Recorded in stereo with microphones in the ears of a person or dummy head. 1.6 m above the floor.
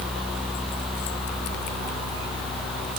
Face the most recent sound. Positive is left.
No sound to turn to.